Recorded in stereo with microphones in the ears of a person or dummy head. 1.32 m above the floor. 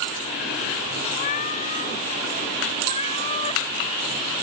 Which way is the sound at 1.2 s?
45° left (ahead or behind).